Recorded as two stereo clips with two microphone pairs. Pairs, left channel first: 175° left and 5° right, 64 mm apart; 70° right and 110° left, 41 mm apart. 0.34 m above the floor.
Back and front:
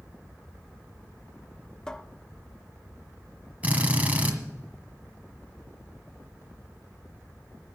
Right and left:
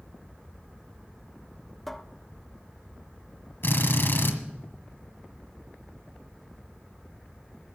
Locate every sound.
1.9 s a cupboard door: 140° right, 0.5 m
3.6 s a drill: 70° right, 1.6 m